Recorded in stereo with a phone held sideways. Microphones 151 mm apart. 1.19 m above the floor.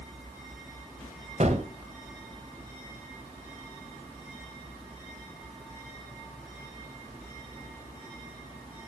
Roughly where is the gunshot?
Right.